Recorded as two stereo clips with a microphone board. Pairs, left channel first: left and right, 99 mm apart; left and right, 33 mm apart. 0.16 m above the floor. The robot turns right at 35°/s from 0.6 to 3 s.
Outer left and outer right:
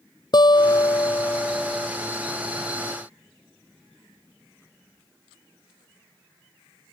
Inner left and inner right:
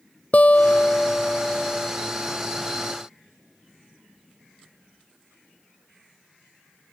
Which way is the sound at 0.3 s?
130° left.